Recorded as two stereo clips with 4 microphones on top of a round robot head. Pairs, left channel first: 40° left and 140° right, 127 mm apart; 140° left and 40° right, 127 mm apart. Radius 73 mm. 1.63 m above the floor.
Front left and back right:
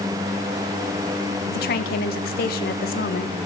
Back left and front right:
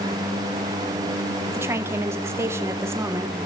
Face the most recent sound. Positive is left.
turn(degrees=35)